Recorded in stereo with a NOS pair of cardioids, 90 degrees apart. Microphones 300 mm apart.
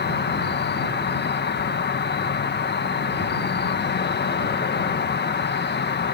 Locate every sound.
0.0 s an insect: 35° left